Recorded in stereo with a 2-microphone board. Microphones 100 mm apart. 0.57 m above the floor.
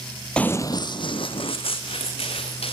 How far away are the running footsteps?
About 0.6 m.